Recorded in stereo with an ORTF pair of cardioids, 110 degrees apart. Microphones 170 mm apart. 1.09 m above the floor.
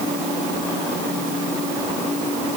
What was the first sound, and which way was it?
Only background noise.